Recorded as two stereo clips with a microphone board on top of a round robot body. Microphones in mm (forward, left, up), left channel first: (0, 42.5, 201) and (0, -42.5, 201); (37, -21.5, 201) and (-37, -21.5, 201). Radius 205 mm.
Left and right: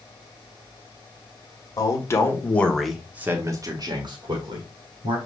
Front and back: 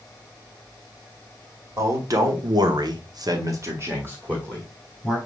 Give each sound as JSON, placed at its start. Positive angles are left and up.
{"t": 1.8, "sound": "a man speaking", "azimuth_deg": 135, "distance_m": 1.8}